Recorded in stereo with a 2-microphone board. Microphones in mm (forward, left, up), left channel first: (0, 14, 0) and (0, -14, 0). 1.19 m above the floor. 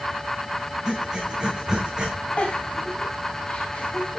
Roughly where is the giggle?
Left.